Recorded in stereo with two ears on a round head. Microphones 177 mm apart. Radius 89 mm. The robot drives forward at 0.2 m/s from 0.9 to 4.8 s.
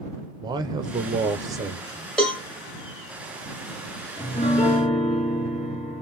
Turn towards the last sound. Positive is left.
turn(degrees=30)  # may be behind; listen again after turning